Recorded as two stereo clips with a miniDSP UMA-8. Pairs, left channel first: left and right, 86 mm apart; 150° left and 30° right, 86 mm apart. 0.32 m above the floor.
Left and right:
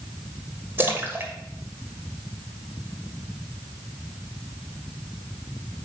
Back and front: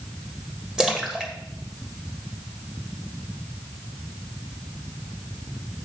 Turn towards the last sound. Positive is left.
turn(degrees=-105)